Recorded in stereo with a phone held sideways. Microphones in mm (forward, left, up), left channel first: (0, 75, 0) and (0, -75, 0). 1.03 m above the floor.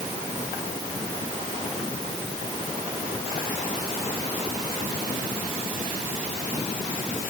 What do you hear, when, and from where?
Only background noise.